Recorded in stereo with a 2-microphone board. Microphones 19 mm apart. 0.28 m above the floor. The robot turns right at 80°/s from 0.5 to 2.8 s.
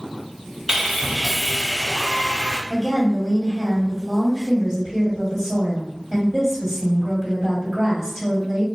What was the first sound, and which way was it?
Sawing, 55° right.